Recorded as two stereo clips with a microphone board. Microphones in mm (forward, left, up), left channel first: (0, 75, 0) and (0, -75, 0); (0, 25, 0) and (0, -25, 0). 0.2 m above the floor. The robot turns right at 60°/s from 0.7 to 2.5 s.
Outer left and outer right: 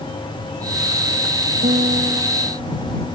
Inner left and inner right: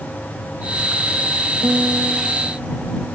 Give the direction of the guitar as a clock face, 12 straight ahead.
2 o'clock.